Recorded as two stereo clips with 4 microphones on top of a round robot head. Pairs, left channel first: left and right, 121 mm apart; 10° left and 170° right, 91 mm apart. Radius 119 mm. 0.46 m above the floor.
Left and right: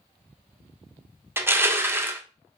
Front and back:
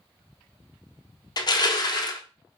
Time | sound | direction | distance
1.4 | crushing | 20° right | 0.8 m